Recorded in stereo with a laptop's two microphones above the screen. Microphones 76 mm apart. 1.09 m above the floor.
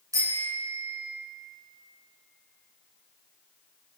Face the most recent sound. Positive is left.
turn(degrees=-45)  # may be behind; listen again after turning